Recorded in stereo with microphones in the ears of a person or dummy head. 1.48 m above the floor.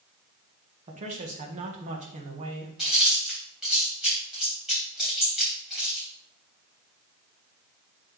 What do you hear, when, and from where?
0.9 s a man speaking: 40° right (ahead or behind), 1.5 m
2.8 s chewing: 5° right (ahead or behind), 3.5 m